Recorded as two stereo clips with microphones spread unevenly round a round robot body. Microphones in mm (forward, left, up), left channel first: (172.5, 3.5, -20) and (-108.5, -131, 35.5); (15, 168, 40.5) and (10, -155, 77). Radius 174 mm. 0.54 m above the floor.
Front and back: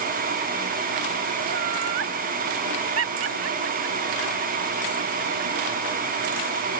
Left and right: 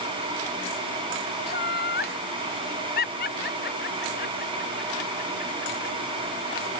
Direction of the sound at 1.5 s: 155° left.